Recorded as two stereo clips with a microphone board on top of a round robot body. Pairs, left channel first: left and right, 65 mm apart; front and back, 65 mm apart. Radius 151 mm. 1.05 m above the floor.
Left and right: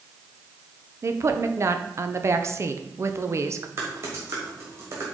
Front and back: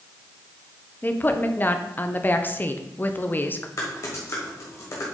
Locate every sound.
1.0 s a woman speaking: 55° right, 1.0 m
3.8 s typing on a keyboard: 45° right, 1.3 m